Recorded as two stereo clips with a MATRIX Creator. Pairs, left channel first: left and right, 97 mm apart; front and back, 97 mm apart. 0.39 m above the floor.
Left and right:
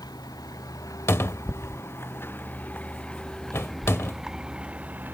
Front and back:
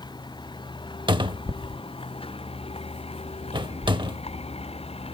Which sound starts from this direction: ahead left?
A vehicle, at 0.0 s.